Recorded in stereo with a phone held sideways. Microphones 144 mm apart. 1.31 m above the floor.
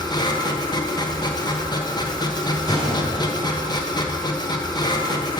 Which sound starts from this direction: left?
A machine running, at 0.0 s.